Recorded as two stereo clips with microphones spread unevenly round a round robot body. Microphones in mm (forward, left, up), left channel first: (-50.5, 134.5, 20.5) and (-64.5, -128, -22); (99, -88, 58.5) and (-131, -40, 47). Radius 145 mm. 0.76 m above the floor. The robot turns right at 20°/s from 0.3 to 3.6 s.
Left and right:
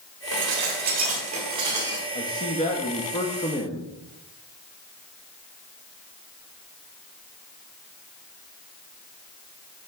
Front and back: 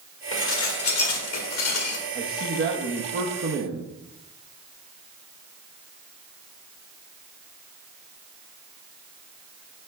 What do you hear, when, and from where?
0.3 s dishes clattering: 45° right, 1.4 m; by 2.0 s 15° right, 1.4 m
2.1 s a man speaking: 140° left, 0.9 m; by 3.9 s 170° left, 0.9 m